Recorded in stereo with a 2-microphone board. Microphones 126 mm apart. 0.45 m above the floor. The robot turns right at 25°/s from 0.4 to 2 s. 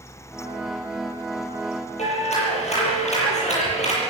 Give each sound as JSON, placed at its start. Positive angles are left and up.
{"t": 2.0, "sound": "a clap", "side_deg": 60, "distance_m": 8.5}